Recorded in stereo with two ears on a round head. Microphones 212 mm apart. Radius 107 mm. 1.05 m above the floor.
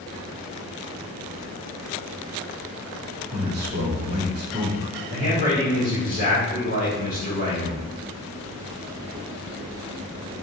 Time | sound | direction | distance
3.3 | a man speaking | 45° right (ahead or behind) | 1.4 m
5.1 | a man speaking | 30° right (ahead or behind) | 1.7 m